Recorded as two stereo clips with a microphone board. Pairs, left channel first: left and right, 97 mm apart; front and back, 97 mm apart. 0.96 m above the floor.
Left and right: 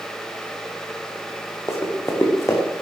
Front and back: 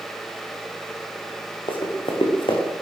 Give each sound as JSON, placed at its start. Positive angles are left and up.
{"t": 1.7, "sound": "running footsteps", "azimuth_deg": 30, "distance_m": 3.5}